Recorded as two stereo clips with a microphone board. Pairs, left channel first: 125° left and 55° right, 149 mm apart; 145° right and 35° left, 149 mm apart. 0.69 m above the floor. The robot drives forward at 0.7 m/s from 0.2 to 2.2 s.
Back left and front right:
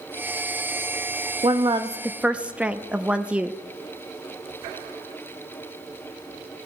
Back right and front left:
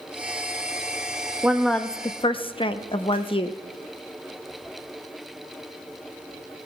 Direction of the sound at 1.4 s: 40° right.